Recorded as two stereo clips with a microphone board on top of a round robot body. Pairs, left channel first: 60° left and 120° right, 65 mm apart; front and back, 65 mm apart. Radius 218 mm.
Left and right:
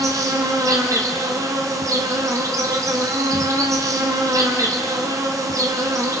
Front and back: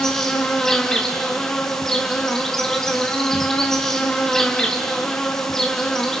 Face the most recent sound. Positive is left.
turn(degrees=-85)